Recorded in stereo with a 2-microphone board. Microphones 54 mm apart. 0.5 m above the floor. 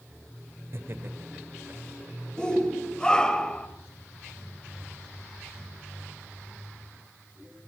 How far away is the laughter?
About 2.5 m.